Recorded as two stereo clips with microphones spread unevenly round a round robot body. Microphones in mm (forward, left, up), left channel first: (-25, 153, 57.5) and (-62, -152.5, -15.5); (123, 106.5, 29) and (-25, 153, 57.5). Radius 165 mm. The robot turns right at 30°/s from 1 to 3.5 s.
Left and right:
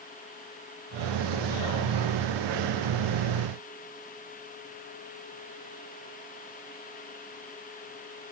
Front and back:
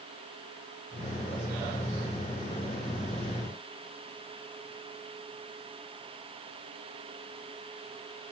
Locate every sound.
Only background noise.